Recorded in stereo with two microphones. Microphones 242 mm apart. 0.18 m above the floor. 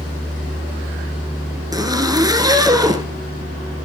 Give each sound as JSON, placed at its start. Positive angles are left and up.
{"t": 1.7, "sound": "a zipper", "side_deg": -15, "distance_m": 2.0}